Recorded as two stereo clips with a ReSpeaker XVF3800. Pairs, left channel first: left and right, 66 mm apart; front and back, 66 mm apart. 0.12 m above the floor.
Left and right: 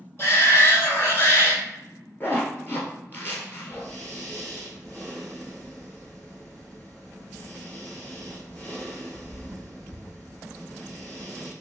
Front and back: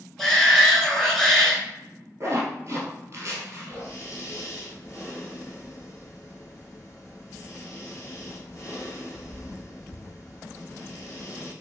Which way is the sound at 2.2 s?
145° left.